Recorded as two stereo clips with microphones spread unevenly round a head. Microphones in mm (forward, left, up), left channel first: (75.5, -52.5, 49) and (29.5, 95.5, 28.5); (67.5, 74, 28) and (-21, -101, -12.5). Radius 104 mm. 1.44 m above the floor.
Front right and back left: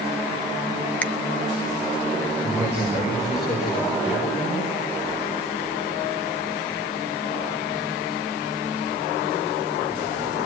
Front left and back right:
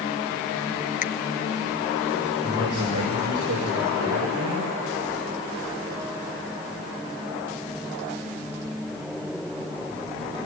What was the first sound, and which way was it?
A finger snap, 10° left.